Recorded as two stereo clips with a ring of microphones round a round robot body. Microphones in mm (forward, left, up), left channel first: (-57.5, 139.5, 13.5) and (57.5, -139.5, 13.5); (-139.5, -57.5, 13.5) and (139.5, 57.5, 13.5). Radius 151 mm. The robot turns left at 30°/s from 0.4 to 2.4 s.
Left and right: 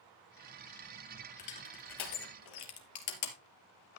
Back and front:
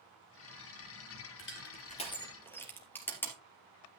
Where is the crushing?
150° left, 3 m; by 3.4 s 120° left, 3 m.